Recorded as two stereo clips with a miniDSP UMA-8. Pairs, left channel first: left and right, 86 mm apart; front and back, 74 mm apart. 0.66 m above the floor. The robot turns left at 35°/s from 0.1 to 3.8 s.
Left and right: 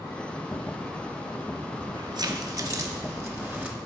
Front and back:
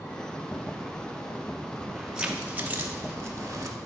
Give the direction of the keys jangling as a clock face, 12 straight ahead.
3 o'clock.